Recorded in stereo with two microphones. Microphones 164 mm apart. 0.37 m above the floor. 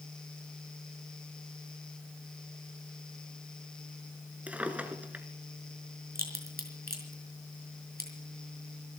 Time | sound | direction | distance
4.5 | a drawer | 10° right (ahead or behind) | 1.7 m
6.2 | a crack | 70° right (ahead or behind) | 4.5 m